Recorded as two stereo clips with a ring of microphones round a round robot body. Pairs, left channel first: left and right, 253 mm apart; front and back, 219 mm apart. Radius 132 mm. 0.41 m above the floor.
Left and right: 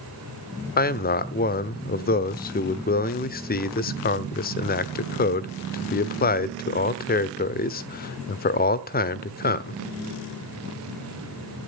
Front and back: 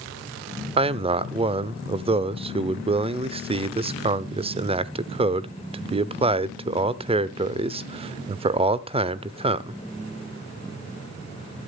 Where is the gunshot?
No gunshot in this recording.